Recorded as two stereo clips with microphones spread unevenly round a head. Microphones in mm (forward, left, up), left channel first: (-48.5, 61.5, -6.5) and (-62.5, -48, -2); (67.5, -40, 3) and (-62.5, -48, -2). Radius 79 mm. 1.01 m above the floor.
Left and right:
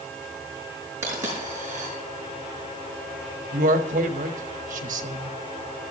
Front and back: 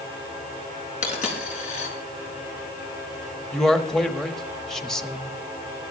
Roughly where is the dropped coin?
Ahead right.